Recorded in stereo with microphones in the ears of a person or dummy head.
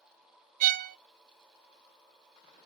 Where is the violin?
45° right (ahead or behind), 0.7 m.